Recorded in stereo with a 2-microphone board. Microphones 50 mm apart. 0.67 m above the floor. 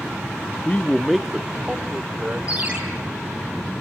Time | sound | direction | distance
0.7 | a man speaking | 30° left (ahead or behind) | 0.6 m
2.5 | a ringtone | 25° right (ahead or behind) | 5.5 m